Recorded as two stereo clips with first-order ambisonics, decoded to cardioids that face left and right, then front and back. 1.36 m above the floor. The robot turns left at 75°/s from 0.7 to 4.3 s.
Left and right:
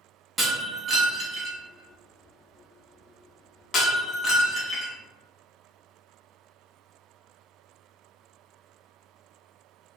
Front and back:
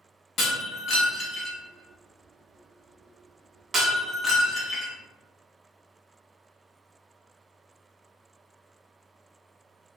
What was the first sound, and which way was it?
Breaking glass, 15° right.